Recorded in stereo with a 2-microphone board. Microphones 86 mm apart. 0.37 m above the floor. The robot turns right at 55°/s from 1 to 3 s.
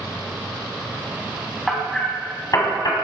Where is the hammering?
5° right (ahead or behind), 1.9 m; by 2.9 s 55° left (ahead or behind), 1.9 m.